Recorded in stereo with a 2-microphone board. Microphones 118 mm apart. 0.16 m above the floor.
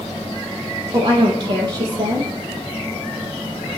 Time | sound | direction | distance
0.9 | a woman speaking | 40° right (ahead or behind) | 4.5 m